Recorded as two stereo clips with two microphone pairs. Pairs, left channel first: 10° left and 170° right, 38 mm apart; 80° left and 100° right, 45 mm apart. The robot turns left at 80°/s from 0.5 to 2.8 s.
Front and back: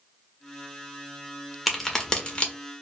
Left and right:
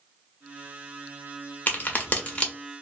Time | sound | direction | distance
1.7 | a crack | 100° left | 0.7 m